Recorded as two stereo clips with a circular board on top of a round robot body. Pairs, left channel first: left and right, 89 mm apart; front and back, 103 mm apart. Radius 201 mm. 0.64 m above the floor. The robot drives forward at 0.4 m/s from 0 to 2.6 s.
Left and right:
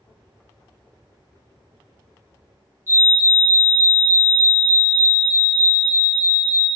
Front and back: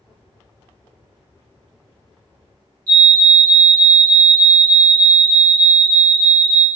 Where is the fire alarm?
145° right, 3 m.